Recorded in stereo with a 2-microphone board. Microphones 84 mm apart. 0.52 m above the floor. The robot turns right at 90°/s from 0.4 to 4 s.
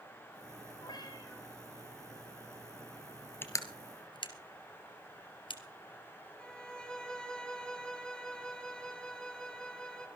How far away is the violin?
About 2.5 m.